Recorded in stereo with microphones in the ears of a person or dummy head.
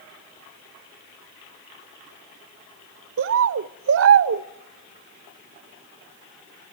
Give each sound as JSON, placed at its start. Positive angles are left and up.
{"t": 3.2, "sound": "a bird", "side_deg": -70, "distance_m": 0.6}